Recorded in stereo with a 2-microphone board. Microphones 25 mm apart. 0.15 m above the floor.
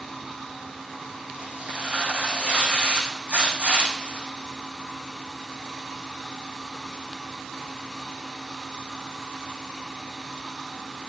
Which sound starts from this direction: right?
Tearing paper, at 1.3 s.